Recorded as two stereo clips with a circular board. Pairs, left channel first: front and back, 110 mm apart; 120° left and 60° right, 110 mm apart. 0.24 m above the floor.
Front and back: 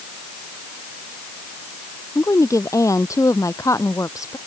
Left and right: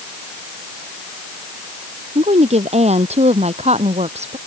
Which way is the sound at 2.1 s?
60° right.